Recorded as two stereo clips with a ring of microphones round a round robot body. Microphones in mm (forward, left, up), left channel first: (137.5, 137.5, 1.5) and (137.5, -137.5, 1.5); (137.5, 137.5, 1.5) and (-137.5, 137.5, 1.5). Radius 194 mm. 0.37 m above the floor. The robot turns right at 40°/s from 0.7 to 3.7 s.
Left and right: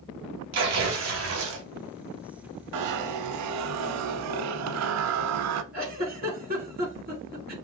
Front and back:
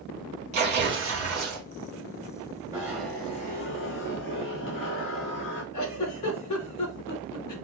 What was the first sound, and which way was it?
Tearing paper, 120° right.